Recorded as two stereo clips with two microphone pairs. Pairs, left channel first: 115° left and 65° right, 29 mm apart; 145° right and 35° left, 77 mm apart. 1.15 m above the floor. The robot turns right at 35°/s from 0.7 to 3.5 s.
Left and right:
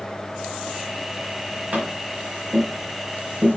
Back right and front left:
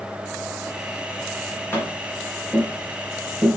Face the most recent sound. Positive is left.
turn(degrees=-30)